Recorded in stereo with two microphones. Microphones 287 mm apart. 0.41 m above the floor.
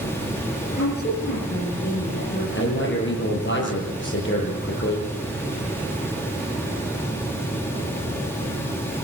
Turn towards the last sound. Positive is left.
turn(degrees=40)  # may be behind; listen again after turning